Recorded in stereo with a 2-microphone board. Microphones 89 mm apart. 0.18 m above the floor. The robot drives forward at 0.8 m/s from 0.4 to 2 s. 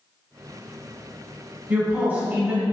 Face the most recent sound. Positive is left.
turn(degrees=-20)  # may be behind; listen again after turning